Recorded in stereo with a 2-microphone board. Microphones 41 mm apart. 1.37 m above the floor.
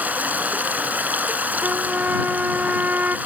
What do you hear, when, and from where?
0.0 s running water: 50° right (ahead or behind)
1.6 s a trumpet: 50° right (ahead or behind)